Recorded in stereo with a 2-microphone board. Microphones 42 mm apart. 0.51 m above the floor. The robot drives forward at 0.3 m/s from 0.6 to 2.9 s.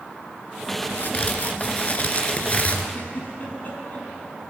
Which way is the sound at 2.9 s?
40° left (ahead or behind).